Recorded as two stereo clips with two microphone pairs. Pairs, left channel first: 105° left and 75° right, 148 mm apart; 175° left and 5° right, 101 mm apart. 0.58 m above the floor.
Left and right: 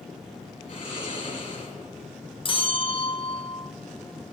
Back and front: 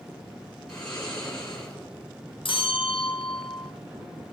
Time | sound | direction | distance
0.7 | snoring | 145° left | 5 m
2.5 | a bell | 150° left | 0.5 m